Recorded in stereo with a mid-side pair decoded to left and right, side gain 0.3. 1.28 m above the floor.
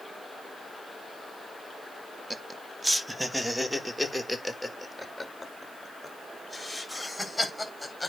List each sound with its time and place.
2.3 s laughter: 20° right, 1.0 m; by 8.1 s 10° left, 4 m